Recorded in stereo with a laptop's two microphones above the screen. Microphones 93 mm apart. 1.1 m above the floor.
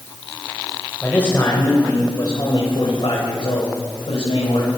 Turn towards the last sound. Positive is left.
turn(degrees=85)